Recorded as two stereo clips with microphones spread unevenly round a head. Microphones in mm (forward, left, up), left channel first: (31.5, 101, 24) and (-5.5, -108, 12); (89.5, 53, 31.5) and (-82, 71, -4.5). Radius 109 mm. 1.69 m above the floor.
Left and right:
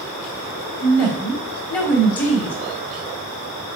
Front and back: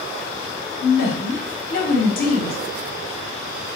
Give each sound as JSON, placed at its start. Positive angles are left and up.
{"t": 0.8, "sound": "a woman speaking", "azimuth_deg": 0, "distance_m": 1.0}